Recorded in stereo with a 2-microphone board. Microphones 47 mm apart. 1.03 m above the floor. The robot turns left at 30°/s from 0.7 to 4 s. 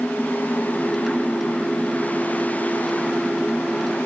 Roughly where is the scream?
No scream in this recording.